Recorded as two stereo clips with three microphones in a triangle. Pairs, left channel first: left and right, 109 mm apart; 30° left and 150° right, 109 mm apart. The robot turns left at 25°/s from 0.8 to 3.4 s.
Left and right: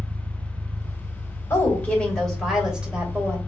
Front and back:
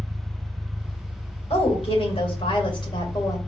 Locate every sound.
0.0 s an engine running: 90° right, 0.9 m; by 3.5 s 155° right, 0.9 m
1.5 s a woman speaking: 25° left, 1.7 m; by 3.4 s 20° right, 1.7 m